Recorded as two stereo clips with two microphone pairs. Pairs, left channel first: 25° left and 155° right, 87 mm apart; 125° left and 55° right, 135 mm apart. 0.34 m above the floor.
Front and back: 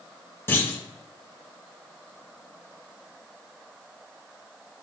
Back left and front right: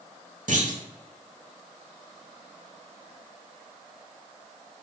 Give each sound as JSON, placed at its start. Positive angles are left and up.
{"t": 0.5, "sound": "a clunk", "azimuth_deg": -35, "distance_m": 0.7}